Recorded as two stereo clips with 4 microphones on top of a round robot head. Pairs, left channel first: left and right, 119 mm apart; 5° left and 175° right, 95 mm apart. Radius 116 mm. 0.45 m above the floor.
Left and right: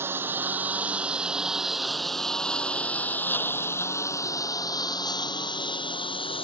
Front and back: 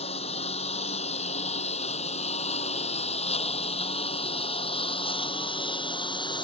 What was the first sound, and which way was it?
A lawn mower, 20° right.